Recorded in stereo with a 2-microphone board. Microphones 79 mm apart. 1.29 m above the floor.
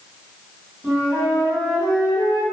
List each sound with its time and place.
0.8 s a flute: 5° left (ahead or behind), 1.9 m